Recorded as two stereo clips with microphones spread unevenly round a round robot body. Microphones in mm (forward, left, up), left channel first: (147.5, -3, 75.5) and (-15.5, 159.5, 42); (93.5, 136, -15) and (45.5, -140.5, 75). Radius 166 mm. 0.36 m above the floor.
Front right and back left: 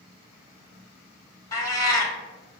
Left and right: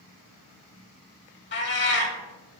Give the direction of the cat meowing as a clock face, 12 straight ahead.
11 o'clock.